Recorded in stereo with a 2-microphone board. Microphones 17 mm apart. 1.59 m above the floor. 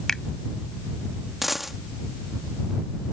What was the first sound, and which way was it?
A finger snap, 25° left (ahead or behind).